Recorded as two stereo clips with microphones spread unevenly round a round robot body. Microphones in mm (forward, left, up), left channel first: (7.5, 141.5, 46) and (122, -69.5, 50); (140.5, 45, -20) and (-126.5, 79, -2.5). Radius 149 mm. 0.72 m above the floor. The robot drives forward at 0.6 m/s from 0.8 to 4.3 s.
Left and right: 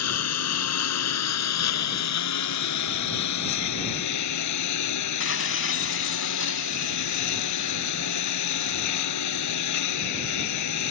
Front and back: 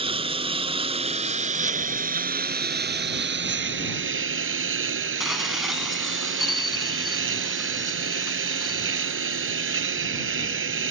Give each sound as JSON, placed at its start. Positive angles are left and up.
{"t": 0.0, "sound": "a lawn mower", "azimuth_deg": 105}
{"t": 5.2, "sound": "dishes clattering", "azimuth_deg": 85}